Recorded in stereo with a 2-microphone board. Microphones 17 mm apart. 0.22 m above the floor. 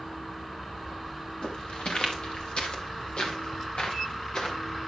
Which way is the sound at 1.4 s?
80° left.